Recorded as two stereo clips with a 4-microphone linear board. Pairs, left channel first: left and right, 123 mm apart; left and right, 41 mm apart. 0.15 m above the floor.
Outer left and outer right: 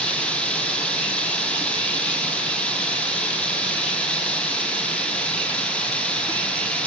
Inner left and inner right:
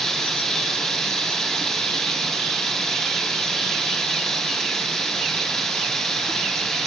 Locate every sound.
0.0 s running water: 10° left (ahead or behind), 2.5 m